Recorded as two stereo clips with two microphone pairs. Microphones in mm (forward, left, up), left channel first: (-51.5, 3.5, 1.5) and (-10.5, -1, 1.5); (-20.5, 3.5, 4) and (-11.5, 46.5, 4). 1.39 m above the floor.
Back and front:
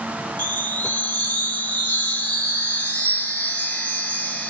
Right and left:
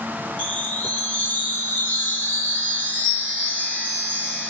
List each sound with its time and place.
0.4 s a chime: 155° right, 1.9 m